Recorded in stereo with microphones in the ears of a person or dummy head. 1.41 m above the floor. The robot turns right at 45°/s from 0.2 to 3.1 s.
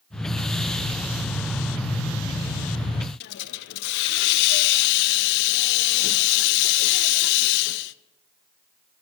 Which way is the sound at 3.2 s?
60° left (ahead or behind).